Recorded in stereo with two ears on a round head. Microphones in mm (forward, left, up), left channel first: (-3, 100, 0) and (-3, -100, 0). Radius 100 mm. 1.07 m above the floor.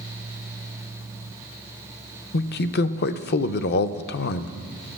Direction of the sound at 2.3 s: 45° left (ahead or behind).